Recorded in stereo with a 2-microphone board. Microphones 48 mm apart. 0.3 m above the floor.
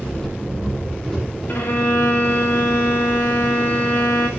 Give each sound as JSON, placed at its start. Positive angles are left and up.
{"t": 0.0, "sound": "an engine running", "side_deg": 10, "distance_m": 9.0}
{"t": 1.5, "sound": "a violin", "side_deg": 40, "distance_m": 7.0}